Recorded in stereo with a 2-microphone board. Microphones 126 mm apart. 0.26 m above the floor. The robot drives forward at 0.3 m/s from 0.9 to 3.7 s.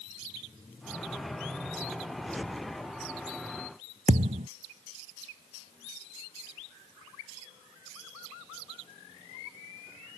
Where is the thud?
75° right (ahead or behind).